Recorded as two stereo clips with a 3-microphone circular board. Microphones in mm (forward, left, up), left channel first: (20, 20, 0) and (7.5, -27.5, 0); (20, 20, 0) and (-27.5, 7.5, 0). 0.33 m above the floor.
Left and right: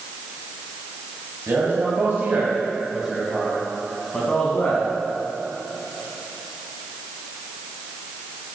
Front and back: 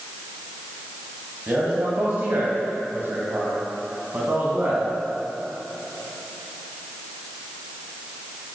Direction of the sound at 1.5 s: 125° right.